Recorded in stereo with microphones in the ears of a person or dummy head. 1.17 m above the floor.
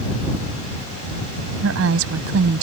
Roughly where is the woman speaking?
Right.